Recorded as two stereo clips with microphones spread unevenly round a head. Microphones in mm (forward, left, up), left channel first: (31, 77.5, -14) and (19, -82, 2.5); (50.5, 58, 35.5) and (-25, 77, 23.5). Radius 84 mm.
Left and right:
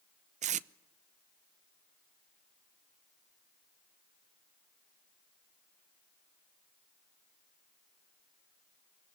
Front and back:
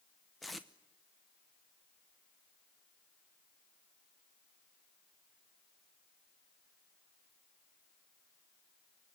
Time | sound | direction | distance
0.4 | tape being pulled | 95° right | 0.6 m